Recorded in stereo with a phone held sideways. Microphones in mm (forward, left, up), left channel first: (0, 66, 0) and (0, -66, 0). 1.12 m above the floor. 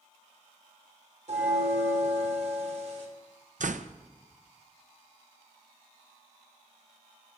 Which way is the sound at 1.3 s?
55° right (ahead or behind).